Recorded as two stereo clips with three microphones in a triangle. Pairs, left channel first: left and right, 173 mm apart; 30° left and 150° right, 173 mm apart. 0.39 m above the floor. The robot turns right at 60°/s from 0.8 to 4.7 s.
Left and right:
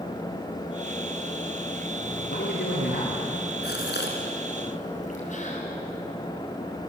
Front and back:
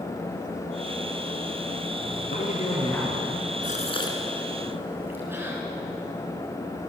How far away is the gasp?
About 3.5 m.